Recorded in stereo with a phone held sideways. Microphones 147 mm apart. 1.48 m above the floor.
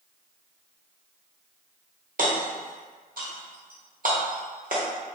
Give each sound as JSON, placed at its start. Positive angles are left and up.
{"t": 2.2, "sound": "hammering", "side_deg": -70, "distance_m": 0.9}